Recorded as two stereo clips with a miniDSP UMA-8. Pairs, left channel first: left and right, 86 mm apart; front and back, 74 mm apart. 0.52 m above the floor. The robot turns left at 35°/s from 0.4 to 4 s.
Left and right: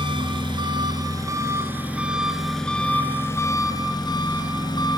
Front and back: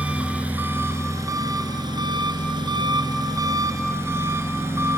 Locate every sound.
0.0 s an engine running: 110° right, 2 m; by 5.0 s 125° left, 2 m